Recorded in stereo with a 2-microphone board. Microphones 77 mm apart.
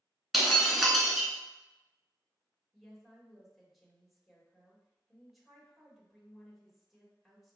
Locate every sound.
0.3 s breaking glass: centre (ahead or behind), 0.9 m
2.7 s a woman speaking: centre (ahead or behind), 1.3 m